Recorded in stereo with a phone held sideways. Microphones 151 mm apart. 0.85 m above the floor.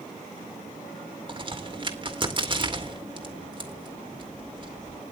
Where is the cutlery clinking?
I don't hear cutlery clinking.